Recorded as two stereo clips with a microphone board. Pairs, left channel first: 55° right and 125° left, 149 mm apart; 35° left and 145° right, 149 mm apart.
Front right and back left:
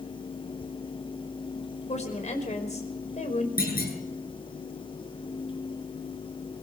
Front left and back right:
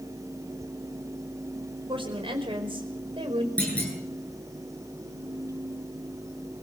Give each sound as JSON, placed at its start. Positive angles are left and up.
{"t": 1.9, "sound": "a woman speaking", "azimuth_deg": -95, "distance_m": 4.5}
{"t": 3.6, "sound": "a clunk", "azimuth_deg": -45, "distance_m": 8.5}